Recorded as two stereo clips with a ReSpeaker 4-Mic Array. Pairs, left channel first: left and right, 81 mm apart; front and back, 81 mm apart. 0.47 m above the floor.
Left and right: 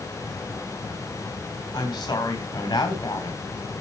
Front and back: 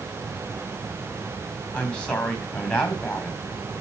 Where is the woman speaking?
75° left, 3 m.